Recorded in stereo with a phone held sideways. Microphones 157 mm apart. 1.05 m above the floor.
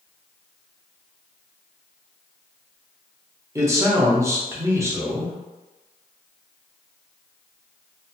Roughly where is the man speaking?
Centre.